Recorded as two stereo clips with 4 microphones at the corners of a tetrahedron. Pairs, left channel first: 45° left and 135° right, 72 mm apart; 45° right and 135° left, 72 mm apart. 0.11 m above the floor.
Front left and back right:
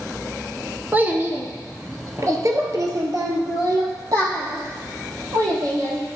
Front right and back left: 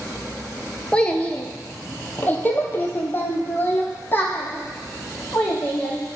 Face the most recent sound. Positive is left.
turn(degrees=-100)